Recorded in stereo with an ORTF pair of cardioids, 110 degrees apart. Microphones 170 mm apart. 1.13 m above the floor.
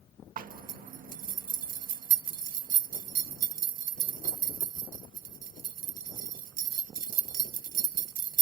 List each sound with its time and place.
0.4 s a zipper: 55° right, 1.2 m